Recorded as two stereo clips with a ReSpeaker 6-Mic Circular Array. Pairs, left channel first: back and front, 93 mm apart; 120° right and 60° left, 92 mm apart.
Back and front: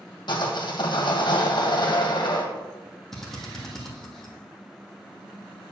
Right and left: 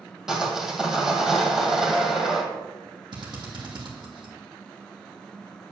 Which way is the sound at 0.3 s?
145° left.